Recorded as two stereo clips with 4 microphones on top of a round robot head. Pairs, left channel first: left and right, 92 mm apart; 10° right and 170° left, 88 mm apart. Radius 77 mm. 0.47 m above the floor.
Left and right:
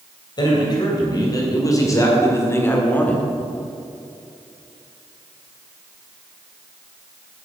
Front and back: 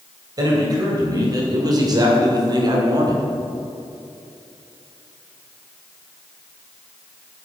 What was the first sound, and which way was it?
A man speaking, 125° left.